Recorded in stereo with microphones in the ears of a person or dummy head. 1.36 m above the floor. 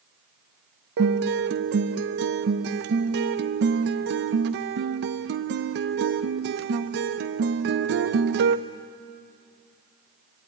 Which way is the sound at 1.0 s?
60° right (ahead or behind).